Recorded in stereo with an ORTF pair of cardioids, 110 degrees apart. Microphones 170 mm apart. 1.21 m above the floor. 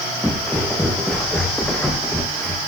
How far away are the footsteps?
About 5 m.